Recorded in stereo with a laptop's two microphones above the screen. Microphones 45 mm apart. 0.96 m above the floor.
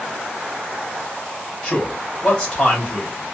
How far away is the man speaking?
About 2 m.